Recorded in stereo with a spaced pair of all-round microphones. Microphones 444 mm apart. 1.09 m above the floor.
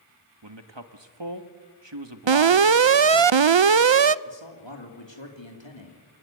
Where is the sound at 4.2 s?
75° left (ahead or behind), 3 m.